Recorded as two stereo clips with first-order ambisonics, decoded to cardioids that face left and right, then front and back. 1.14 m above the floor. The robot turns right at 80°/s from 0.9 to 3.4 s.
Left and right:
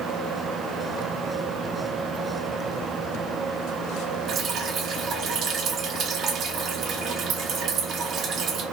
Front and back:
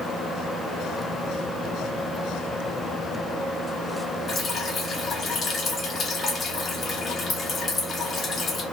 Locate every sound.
4.3 s dripping: 50° right, 0.8 m